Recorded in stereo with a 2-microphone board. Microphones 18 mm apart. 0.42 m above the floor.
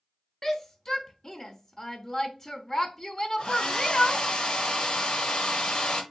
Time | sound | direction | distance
0.4 | a shout | 30° left (ahead or behind) | 0.8 m
3.4 | a hair dryer | 55° left (ahead or behind) | 1.1 m